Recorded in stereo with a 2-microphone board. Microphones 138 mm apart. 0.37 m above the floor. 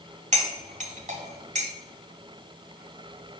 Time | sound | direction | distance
0.3 | cutlery clinking | 60° right (ahead or behind) | 1.6 m